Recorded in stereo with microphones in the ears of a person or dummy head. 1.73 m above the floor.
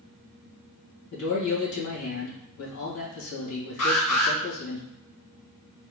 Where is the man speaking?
70° left (ahead or behind), 2.0 m.